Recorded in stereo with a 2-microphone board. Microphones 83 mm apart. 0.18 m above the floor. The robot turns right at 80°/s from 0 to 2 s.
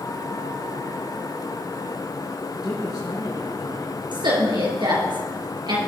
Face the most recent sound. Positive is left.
turn(degrees=-65)  # may be behind; listen again after turning